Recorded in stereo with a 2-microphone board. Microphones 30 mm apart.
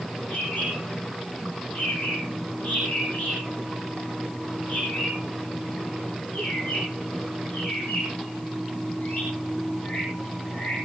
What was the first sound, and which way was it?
A bird, 65° left (ahead or behind).